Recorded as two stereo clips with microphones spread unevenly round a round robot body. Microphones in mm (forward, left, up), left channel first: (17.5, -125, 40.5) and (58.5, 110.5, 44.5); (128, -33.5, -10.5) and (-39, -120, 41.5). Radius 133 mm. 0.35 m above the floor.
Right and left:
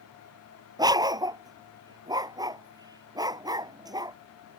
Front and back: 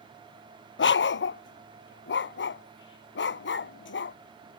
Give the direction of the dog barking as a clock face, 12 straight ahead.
12 o'clock.